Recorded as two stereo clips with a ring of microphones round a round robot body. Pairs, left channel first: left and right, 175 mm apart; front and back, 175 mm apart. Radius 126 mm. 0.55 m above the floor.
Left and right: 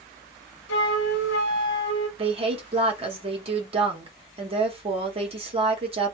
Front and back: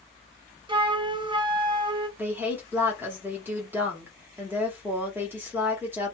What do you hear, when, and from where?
0.7 s a flute: 120° left, 0.5 m
2.2 s a woman speaking: 110° right, 0.8 m